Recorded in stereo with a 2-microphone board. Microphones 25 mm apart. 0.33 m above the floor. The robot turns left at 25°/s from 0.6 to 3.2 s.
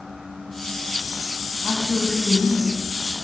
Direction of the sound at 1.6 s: 35° right (ahead or behind).